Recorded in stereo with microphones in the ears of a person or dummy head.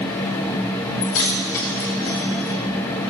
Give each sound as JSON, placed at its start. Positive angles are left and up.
{"t": 1.0, "sound": "keys jangling", "side_deg": 70, "distance_m": 2.5}